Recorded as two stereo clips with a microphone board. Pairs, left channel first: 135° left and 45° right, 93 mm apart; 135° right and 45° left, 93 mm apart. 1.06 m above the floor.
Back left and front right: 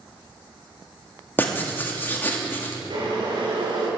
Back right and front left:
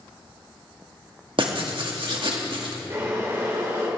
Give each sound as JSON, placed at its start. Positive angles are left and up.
{"t": 1.4, "sound": "writing", "azimuth_deg": 70, "distance_m": 2.0}
{"t": 2.9, "sound": "boiling", "azimuth_deg": -15, "distance_m": 4.0}